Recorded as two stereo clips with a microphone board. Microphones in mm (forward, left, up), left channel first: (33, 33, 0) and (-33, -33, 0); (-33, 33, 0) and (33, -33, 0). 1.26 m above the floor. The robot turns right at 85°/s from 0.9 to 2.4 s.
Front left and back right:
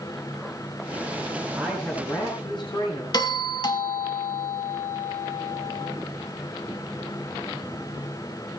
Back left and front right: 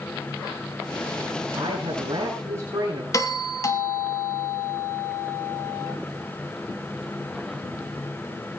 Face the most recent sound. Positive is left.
turn(degrees=85)